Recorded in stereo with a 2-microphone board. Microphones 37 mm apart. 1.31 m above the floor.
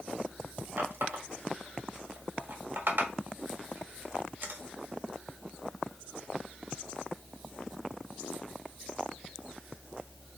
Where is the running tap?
70° right (ahead or behind), 1.4 m.